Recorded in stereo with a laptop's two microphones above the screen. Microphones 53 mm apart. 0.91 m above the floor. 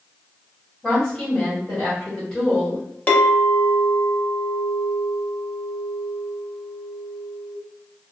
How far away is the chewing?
No chewing in this recording.